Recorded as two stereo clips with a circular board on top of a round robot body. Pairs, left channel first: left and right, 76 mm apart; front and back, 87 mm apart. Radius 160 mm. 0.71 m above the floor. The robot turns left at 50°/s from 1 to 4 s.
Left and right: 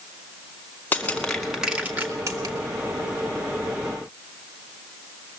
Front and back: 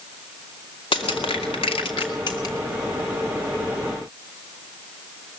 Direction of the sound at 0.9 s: 25° left.